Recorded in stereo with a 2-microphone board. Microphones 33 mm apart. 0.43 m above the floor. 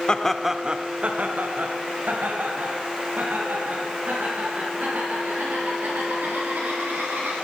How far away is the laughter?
About 0.8 m.